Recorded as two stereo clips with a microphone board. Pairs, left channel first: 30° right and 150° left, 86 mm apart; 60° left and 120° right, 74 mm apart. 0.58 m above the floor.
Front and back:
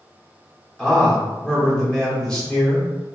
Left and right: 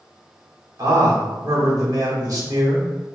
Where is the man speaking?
110° right, 1.1 m.